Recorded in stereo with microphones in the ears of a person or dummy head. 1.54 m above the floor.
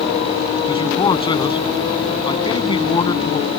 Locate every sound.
0.7 s a man speaking: 25° left (ahead or behind)